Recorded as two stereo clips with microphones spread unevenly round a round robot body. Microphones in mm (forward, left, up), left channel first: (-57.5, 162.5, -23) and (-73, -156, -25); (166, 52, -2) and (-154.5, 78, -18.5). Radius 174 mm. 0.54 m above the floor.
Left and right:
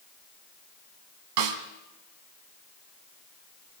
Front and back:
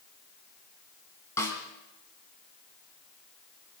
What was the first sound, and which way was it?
A snare drum, 85° right.